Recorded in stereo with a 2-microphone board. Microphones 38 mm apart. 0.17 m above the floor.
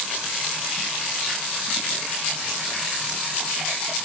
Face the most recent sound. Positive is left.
No sound to turn to.